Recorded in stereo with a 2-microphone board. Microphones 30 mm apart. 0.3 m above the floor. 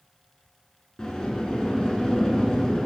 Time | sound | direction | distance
1.0 | a sliding door | 20° left (ahead or behind) | 0.5 m